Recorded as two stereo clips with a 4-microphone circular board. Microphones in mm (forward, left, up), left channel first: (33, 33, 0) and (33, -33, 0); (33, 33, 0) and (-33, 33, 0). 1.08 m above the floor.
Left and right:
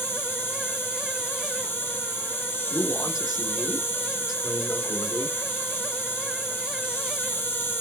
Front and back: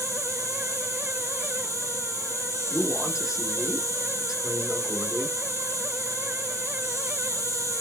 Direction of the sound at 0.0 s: 150° left.